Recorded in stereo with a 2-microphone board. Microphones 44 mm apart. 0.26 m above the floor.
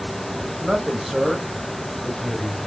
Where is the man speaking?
10° right (ahead or behind), 1.0 m; by 2.6 s 15° left (ahead or behind), 1.0 m.